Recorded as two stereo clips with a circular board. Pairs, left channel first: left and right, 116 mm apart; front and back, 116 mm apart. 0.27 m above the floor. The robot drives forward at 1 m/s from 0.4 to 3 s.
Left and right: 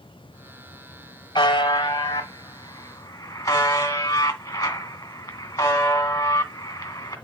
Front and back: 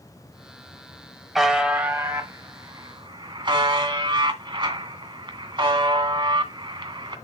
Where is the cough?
I don't hear a cough.